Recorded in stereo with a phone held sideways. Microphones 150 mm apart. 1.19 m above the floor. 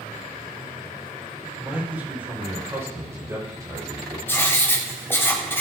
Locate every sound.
1.6 s a man speaking: 10° right (ahead or behind), 4 m; by 4.2 s 25° right (ahead or behind), 5.5 m
4.3 s writing: 15° left (ahead or behind), 1.4 m